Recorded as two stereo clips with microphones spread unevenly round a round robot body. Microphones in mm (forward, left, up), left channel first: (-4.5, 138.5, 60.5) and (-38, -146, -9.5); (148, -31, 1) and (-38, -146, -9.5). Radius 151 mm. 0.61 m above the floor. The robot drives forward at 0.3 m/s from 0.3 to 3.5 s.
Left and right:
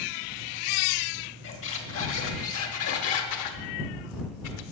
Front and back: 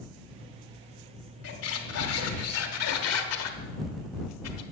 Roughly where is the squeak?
Ahead left.